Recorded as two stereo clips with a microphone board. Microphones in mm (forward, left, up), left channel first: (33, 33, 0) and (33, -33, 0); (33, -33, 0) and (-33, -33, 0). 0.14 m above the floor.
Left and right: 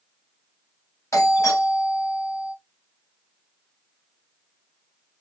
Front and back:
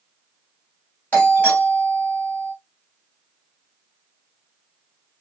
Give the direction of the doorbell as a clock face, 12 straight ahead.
10 o'clock.